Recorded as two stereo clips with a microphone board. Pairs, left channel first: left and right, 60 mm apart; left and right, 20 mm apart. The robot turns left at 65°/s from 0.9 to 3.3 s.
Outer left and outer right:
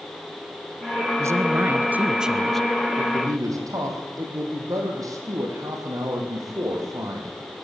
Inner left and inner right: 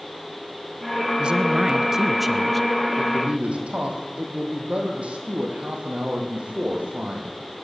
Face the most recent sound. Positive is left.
turn(degrees=-60)  # may be behind; listen again after turning